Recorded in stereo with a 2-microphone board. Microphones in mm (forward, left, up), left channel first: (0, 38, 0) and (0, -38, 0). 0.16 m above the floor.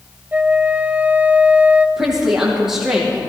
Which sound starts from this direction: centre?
A woman speaking, at 2.0 s.